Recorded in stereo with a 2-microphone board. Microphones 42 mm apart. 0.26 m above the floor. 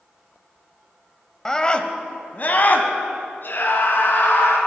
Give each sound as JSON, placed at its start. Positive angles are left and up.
{"t": 1.4, "sound": "a scream", "side_deg": 15, "distance_m": 0.9}